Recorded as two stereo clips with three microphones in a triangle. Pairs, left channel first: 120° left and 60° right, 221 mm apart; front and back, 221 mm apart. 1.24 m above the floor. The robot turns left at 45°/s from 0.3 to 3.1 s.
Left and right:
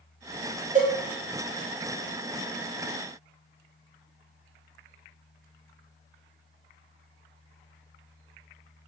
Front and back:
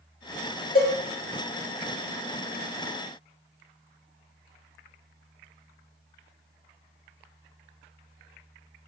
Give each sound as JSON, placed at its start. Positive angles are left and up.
{"t": 0.8, "sound": "a cowbell", "azimuth_deg": -20, "distance_m": 1.3}